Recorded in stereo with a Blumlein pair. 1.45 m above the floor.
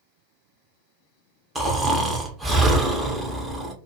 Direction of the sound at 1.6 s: 10° right.